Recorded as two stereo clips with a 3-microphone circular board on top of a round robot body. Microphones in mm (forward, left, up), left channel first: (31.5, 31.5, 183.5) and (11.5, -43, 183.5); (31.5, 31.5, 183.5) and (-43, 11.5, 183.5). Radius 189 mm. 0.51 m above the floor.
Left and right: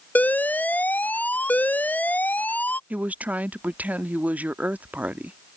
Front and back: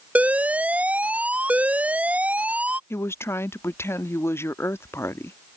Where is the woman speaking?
35° right.